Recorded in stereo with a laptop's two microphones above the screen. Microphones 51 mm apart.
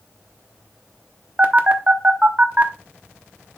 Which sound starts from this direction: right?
A phone buzzing, at 1.4 s.